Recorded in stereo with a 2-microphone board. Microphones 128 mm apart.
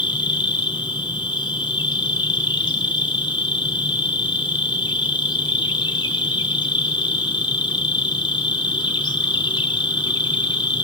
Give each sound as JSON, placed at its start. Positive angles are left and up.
{"t": 0.0, "sound": "an insect", "side_deg": 35, "distance_m": 4.0}